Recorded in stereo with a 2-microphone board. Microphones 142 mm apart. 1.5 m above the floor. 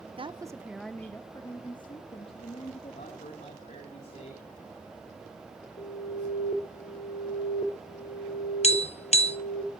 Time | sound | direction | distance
0.2 | a woman speaking | 40° right (ahead or behind) | 0.8 m
2.9 | a man speaking | 55° left (ahead or behind) | 4 m
5.8 | an alarm | 80° left | 3.5 m
8.6 | tapping | 50° left (ahead or behind) | 0.9 m